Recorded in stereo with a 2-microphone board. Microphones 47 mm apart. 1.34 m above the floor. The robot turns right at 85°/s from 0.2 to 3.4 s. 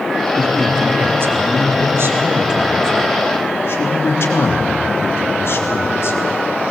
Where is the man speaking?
160° left, 3 m; by 6.2 s 60° left, 3 m.